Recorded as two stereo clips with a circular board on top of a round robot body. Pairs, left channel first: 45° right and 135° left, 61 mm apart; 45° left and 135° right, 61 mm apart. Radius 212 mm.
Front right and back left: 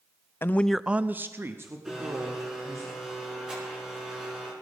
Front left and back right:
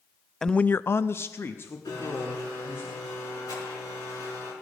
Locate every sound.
0.4 s a man speaking: 35° right, 0.6 m; by 2.9 s 100° left, 2.5 m
1.9 s a blender: 55° left, 5.5 m